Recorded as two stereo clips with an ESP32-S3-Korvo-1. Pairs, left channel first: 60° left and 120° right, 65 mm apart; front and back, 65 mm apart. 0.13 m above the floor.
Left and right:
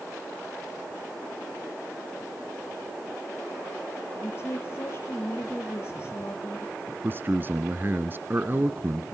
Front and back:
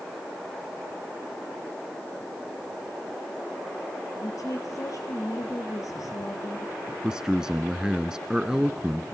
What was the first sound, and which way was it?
A woman speaking, 15° left.